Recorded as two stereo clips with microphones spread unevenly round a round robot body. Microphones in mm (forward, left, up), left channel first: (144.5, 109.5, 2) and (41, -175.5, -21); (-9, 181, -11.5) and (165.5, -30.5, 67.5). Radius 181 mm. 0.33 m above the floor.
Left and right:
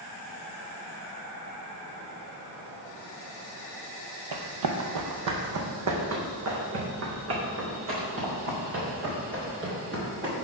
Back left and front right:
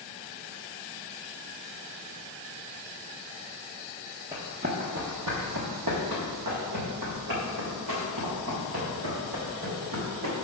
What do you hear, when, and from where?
4.3 s running footsteps: 120° right, 0.8 m; by 10.3 s 55° right, 4 m